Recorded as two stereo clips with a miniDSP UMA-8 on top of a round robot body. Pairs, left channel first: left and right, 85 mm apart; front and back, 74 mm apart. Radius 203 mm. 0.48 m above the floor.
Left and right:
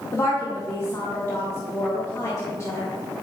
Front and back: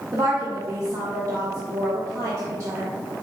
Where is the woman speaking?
145° left, 1.7 m.